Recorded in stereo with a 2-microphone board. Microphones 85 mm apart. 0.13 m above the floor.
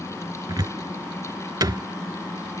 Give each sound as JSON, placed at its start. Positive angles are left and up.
{"t": 0.5, "sound": "a cupboard door", "side_deg": -55}